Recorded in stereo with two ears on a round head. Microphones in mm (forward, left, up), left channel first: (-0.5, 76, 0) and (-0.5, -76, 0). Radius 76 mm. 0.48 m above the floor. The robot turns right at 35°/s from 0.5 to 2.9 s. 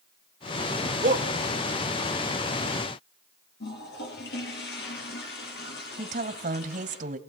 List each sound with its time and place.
1.0 s a shout: 50° right (ahead or behind), 1.9 m; by 1.3 s 45° right (ahead or behind), 1.9 m
3.6 s a toilet flushing: 70° left (ahead or behind), 9 m
6.0 s a woman speaking: 45° right (ahead or behind), 2 m